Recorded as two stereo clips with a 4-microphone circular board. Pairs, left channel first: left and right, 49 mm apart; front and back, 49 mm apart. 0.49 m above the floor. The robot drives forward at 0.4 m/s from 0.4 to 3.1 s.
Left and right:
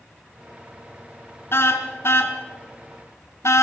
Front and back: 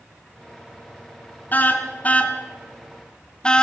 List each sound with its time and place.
1.5 s a car horn: 55° left, 2 m; by 3.6 s 70° left, 1.7 m